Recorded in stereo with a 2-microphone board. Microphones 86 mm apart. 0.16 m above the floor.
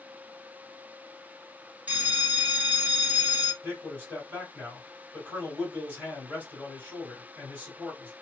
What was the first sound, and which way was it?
A bell, 20° right (ahead or behind).